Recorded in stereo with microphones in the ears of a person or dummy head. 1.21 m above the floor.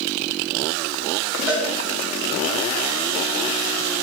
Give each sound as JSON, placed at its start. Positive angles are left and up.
{"t": 1.5, "sound": "a cowbell", "side_deg": -30, "distance_m": 3.5}